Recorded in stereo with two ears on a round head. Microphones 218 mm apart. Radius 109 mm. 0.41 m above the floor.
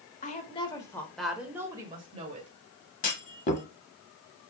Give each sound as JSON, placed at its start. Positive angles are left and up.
{"t": 0.2, "sound": "a woman speaking", "side_deg": 35, "distance_m": 1.1}
{"t": 3.0, "sound": "a clunk", "side_deg": 30, "distance_m": 0.8}